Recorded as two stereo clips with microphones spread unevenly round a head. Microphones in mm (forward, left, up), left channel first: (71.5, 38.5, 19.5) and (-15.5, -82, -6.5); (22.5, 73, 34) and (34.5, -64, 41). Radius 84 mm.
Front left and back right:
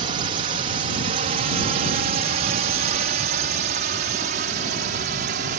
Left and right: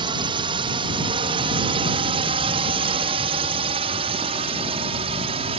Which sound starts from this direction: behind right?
A drone, at 0.0 s.